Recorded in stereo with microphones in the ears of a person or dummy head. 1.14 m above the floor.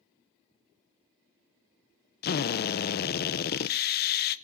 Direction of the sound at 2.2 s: 50° left (ahead or behind).